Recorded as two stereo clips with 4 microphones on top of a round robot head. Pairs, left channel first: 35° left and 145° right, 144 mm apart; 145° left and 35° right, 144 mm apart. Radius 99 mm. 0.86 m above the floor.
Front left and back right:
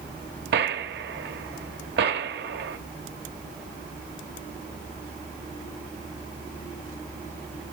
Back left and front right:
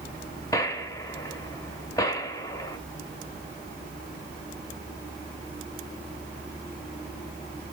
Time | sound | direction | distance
0.5 | a gunshot | 150° right | 1.0 m